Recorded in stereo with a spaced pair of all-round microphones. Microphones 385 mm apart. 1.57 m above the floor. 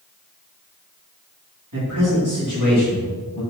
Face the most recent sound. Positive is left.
turn(degrees=-40)  # may be behind; listen again after turning